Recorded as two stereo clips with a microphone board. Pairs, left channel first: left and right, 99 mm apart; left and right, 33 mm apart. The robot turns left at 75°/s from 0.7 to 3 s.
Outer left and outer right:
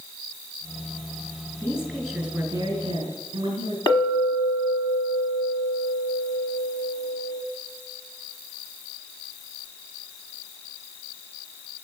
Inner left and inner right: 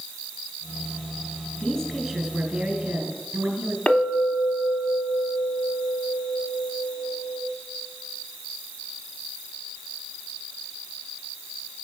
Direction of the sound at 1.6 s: 35° left.